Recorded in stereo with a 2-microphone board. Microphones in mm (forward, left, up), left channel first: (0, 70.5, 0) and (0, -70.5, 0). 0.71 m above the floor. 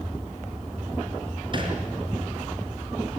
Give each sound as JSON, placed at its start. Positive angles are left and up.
{"t": 1.5, "sound": "a thud", "side_deg": -35, "distance_m": 4.5}